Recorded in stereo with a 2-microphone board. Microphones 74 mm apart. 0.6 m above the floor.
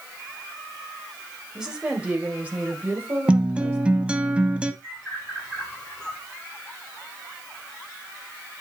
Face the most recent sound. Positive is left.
turn(degrees=10)  # may be behind; listen again after turning